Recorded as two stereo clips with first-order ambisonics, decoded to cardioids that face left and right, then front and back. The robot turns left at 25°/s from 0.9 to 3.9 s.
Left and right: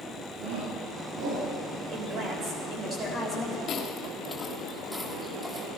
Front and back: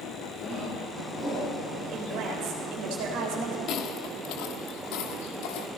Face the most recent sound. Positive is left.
turn(degrees=-10)